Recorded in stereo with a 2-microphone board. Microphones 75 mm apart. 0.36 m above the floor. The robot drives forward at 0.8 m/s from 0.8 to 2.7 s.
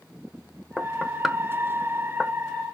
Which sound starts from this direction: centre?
Knocking, at 0.8 s.